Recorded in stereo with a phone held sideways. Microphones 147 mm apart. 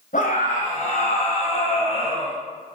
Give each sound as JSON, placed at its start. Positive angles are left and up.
{"t": 0.1, "sound": "a scream", "side_deg": 65, "distance_m": 5.0}